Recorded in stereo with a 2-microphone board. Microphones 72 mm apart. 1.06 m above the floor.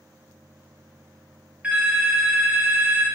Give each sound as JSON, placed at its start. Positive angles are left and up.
{"t": 1.6, "sound": "a phone ringing", "side_deg": -15, "distance_m": 0.7}